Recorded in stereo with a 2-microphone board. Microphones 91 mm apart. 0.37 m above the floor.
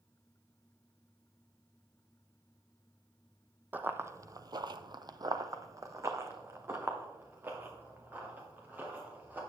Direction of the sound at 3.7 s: 20° right (ahead or behind).